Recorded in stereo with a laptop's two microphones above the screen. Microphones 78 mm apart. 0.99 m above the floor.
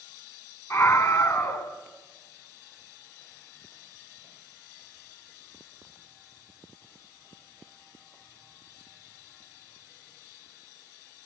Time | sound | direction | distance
0.7 | a scream | 40° left (ahead or behind) | 4 m